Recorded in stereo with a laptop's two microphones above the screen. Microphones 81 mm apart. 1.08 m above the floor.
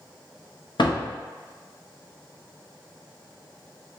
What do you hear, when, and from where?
0.8 s a door slam: 65° left (ahead or behind), 0.6 m